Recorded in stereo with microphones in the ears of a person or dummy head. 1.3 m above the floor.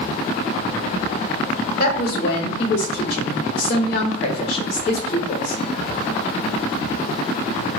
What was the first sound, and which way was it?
A woman speaking, 40° left (ahead or behind).